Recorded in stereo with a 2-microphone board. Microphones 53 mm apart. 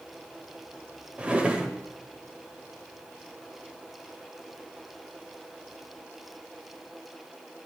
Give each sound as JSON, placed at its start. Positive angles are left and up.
{"t": 1.2, "sound": "a drawer", "side_deg": -20, "distance_m": 1.0}